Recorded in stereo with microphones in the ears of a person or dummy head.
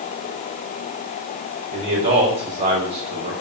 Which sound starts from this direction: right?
A man speaking, at 1.7 s.